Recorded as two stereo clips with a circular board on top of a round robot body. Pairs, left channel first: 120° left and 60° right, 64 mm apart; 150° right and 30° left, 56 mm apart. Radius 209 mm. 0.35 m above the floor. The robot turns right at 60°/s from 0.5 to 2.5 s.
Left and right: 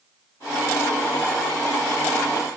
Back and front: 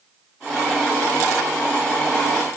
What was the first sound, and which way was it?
Only background noise.